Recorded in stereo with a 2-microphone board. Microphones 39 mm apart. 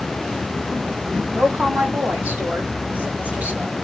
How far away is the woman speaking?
About 2.5 m.